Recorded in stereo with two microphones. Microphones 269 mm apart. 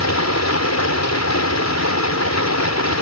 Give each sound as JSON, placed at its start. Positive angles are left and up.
{"t": 0.0, "sound": "running water", "side_deg": 75}